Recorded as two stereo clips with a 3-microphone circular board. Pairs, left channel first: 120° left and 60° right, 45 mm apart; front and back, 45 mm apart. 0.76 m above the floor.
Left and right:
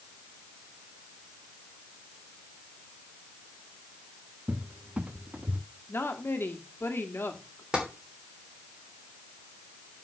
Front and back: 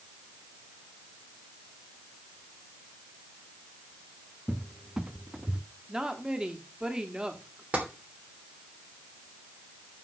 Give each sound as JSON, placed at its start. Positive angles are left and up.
{"t": 4.5, "sound": "a cupboard door", "azimuth_deg": -110, "distance_m": 0.8}
{"t": 5.9, "sound": "a woman speaking", "azimuth_deg": 110, "distance_m": 1.5}
{"t": 7.7, "sound": "tapping", "azimuth_deg": -130, "distance_m": 3.0}